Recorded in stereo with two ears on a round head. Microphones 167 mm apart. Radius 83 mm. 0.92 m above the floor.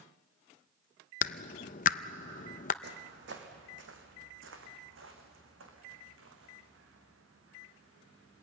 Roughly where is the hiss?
I don't hear a hiss.